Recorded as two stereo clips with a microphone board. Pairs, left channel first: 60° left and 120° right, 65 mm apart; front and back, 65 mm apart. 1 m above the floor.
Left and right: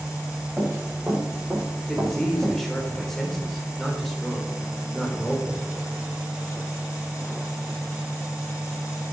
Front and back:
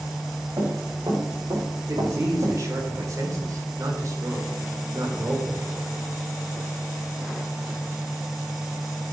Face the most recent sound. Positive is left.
turn(degrees=145)